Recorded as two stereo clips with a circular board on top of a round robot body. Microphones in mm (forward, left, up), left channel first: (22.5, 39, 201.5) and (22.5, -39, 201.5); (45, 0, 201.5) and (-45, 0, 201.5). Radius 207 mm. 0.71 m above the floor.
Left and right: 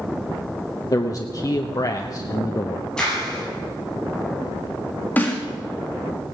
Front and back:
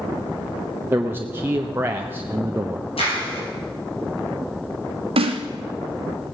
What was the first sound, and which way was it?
A man speaking, 120° left.